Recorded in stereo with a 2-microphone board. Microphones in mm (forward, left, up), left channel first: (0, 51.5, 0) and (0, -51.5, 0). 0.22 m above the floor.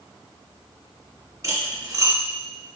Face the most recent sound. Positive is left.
turn(degrees=-35)  # may be behind; listen again after turning